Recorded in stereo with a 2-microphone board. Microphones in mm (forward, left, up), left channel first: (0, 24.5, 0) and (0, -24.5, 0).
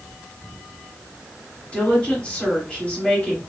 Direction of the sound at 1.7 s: 20° left (ahead or behind).